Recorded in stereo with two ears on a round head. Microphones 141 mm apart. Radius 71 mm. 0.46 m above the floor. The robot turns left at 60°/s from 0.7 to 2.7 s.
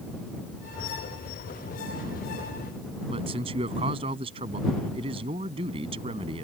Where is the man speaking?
35° right (ahead or behind).